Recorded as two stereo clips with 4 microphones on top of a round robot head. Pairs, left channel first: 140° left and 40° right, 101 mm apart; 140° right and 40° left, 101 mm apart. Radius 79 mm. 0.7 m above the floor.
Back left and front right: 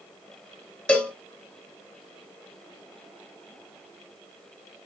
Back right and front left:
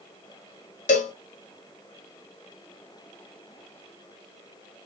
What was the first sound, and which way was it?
A cowbell, 140° right.